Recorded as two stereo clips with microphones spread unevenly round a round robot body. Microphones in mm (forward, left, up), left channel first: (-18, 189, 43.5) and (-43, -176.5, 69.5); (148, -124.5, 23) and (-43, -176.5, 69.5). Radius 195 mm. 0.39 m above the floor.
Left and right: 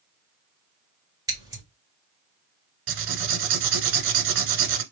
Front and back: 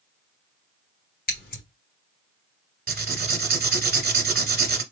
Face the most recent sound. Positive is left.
turn(degrees=-125)